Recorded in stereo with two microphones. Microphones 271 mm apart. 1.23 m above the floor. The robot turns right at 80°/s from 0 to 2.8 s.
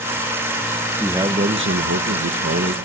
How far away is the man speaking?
About 1.5 m.